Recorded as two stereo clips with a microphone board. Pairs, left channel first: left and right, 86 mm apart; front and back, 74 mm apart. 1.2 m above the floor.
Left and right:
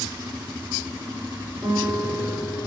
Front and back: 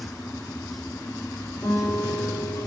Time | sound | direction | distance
1.6 | a guitar | 15° right | 4 m